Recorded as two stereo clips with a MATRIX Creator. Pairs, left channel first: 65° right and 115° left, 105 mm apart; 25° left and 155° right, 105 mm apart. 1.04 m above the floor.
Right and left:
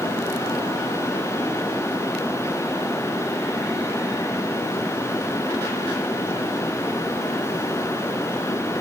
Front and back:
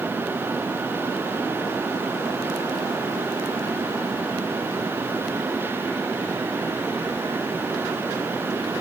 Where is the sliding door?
I don't hear a sliding door.